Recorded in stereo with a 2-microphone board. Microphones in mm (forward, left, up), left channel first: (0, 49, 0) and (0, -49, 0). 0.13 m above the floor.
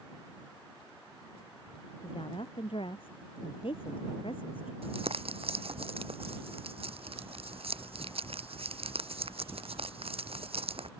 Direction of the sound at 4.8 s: 75° right (ahead or behind).